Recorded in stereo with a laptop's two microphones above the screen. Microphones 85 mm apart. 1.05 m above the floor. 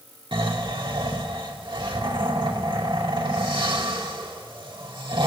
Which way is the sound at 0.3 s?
80° right.